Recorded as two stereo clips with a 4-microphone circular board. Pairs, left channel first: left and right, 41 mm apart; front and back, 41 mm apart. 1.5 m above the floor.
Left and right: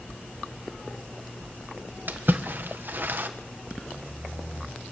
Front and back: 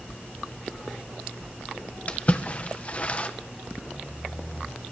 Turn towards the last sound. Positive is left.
turn(degrees=-55)